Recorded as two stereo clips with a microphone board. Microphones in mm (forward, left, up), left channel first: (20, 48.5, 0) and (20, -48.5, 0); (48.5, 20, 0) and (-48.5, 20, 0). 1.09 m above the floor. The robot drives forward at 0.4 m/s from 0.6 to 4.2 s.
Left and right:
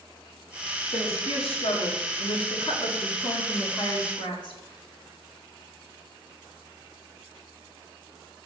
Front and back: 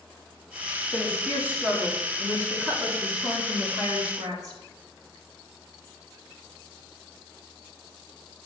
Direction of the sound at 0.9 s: 100° left.